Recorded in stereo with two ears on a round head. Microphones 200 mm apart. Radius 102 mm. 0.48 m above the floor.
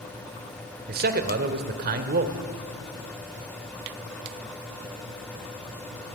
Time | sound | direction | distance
0.9 | a man speaking | 45° right (ahead or behind) | 1.6 m